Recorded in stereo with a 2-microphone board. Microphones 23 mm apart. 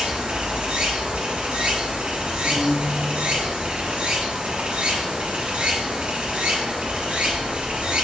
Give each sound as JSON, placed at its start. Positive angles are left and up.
{"t": 0.0, "sound": "running water", "side_deg": -60, "distance_m": 1.4}
{"t": 2.4, "sound": "a guitar", "side_deg": -50, "distance_m": 1.9}